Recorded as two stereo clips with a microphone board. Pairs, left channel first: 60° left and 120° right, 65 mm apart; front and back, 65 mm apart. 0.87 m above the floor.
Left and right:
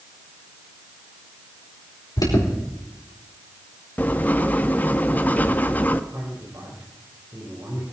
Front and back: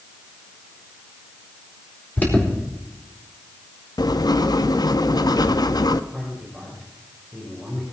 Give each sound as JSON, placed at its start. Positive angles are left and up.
{"t": 2.2, "sound": "an alarm", "azimuth_deg": 65, "distance_m": 4.5}
{"t": 4.0, "sound": "writing", "azimuth_deg": 0, "distance_m": 0.7}
{"t": 6.1, "sound": "a man speaking", "azimuth_deg": -90, "distance_m": 4.0}